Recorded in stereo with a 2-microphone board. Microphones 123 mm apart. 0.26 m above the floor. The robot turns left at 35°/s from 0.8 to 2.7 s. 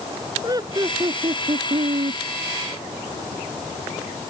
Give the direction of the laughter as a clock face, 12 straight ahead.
1 o'clock.